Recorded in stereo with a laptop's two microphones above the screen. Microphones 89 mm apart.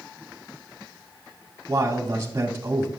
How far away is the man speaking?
About 2 m.